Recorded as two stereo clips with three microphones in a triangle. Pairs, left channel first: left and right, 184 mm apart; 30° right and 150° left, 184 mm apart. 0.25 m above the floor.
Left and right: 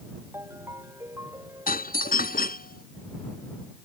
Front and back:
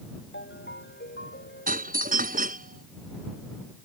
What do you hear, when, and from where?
0.3 s a ringtone: 15° right
1.7 s a doorbell: 120° left